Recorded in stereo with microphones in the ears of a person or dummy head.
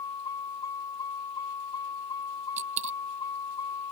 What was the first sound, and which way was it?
A vehicle, 25° left (ahead or behind).